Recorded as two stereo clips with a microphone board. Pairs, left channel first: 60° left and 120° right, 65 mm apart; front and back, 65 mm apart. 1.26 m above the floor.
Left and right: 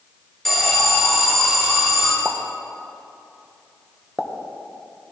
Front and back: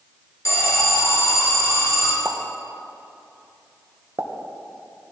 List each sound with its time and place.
0.5 s an alarm: 25° right, 2.5 m
2.2 s a pop: 160° left, 0.8 m